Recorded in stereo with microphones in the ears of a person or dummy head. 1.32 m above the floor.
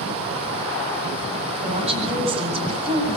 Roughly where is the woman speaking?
Right.